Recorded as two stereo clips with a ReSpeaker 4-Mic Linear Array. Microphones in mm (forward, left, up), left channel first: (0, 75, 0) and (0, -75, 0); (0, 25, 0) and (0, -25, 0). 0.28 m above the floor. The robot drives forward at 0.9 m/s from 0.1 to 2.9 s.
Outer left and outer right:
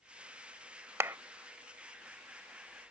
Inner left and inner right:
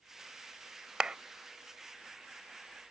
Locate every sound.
1.0 s a clap: 15° right (ahead or behind); by 1.2 s 20° right (ahead or behind)